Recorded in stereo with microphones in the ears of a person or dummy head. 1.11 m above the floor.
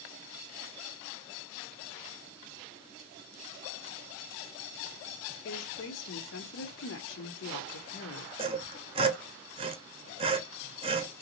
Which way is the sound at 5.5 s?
60° left (ahead or behind).